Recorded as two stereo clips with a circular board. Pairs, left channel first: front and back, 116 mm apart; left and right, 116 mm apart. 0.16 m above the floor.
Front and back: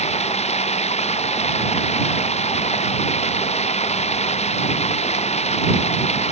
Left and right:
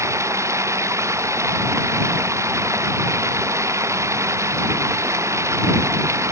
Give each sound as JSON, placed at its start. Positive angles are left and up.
{"t": 0.0, "sound": "running water", "azimuth_deg": -25}